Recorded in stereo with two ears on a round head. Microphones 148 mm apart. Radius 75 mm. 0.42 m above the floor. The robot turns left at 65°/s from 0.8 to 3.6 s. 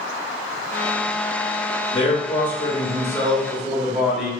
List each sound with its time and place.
1.9 s a man speaking: 110° left, 1.2 m; by 4.3 s straight ahead, 1.2 m